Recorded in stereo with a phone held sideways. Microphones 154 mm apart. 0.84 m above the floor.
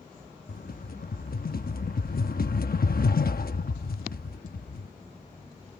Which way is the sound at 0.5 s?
75° left (ahead or behind).